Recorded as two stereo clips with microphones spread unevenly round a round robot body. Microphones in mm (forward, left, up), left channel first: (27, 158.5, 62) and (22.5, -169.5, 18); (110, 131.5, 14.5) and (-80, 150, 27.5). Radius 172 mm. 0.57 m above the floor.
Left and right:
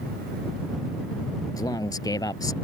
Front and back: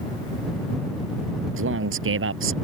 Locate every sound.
1.6 s a man speaking: 170° left